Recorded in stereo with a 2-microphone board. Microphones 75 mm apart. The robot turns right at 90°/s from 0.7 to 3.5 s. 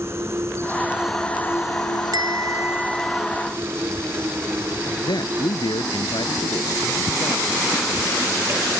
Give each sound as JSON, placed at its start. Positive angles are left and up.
{"t": 0.0, "sound": "an insect", "azimuth_deg": -40}
{"t": 2.1, "sound": "a bell", "azimuth_deg": -85}
{"t": 5.0, "sound": "a man speaking", "side_deg": 85}